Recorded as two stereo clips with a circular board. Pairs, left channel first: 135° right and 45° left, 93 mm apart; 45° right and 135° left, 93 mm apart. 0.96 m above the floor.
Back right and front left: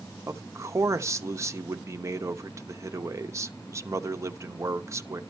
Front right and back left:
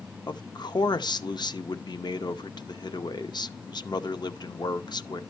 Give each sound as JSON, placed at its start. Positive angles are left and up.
{"t": 0.3, "sound": "a man speaking", "azimuth_deg": -10, "distance_m": 0.8}